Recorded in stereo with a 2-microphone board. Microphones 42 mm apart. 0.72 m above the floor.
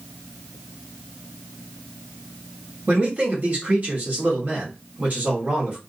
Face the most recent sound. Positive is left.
turn(degrees=-40)  # may be behind; listen again after turning